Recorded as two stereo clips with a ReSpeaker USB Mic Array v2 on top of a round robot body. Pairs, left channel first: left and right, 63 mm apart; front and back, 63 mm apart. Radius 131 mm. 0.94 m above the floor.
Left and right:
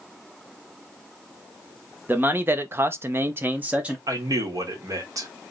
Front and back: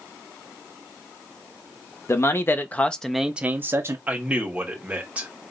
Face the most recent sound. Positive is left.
turn(degrees=-115)